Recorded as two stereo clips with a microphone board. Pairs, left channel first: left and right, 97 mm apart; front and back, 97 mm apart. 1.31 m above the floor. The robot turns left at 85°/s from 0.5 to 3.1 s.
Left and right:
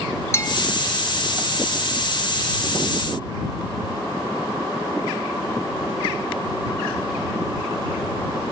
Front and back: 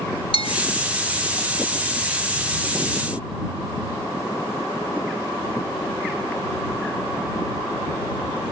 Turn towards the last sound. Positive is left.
turn(degrees=165)